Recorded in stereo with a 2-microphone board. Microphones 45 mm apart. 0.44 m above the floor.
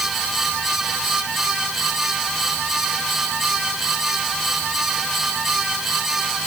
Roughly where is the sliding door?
I don't hear a sliding door.